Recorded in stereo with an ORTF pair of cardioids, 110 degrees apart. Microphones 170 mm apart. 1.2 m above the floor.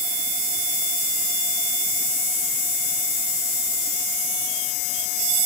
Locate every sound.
Only background noise.